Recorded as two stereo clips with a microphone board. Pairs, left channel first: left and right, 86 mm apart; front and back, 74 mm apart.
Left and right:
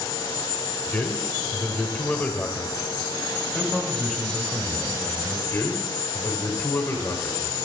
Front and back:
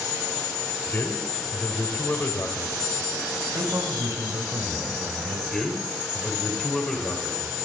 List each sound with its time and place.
0.9 s a man speaking: 30° left, 1.3 m
3.5 s a man speaking: 175° left, 1.4 m
5.5 s a man speaking: 75° left, 1.6 m